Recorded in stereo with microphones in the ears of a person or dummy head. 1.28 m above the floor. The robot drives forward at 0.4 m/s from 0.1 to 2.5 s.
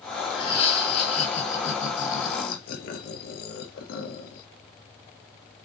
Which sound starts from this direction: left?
Laughter, at 0.3 s.